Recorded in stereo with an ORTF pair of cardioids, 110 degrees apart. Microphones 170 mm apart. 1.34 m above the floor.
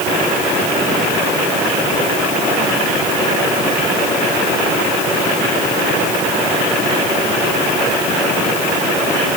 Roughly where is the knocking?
I don't hear knocking.